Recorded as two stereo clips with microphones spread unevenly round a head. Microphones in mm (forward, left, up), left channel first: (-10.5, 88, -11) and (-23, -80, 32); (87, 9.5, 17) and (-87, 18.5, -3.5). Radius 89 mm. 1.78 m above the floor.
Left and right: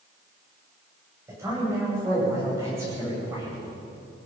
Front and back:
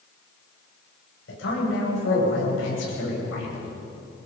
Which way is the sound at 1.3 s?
20° right.